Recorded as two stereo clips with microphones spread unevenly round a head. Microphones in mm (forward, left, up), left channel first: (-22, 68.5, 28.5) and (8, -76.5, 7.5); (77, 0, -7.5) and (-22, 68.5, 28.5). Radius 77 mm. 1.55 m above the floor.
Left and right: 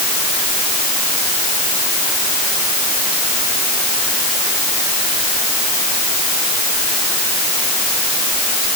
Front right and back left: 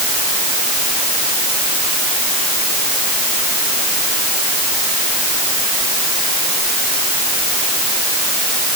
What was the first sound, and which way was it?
Only background noise.